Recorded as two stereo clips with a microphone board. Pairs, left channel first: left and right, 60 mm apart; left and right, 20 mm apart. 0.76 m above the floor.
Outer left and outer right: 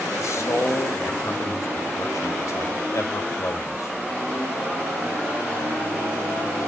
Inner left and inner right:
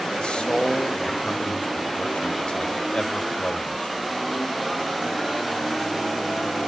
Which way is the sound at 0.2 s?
55° left (ahead or behind).